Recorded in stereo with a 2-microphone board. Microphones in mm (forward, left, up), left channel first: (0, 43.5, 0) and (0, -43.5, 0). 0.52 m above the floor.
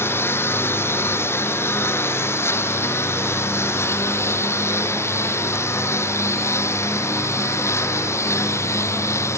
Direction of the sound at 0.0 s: 25° left (ahead or behind).